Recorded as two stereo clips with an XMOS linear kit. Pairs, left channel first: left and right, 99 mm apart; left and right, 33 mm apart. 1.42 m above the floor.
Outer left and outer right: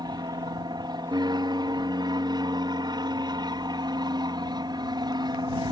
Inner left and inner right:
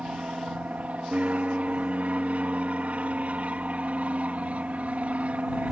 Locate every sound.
0.0 s an aircraft: 45° right (ahead or behind)